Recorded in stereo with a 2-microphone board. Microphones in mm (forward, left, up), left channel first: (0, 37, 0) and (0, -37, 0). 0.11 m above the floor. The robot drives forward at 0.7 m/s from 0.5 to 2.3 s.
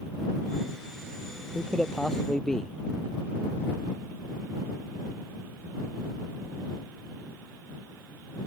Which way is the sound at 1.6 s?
10° left (ahead or behind).